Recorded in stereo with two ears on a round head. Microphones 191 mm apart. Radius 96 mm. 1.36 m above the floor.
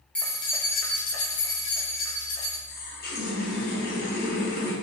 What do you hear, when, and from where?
0.1 s keys jangling: 5° left (ahead or behind), 0.9 m; by 2.6 s 70° left (ahead or behind), 2 m
2.7 s a running tap: 45° left (ahead or behind), 1.1 m